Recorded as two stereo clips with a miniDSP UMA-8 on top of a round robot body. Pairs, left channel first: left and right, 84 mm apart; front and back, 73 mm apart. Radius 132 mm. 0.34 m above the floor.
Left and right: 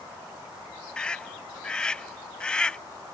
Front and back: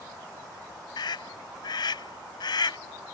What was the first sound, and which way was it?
A scream, 10° left.